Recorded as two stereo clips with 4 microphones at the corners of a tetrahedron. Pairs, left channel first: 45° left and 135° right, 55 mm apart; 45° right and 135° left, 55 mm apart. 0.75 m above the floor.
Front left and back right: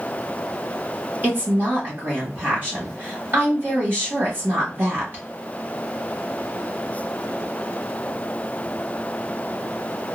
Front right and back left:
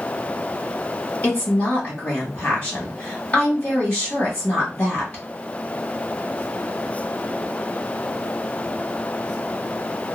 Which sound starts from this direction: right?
A woman speaking, at 1.2 s.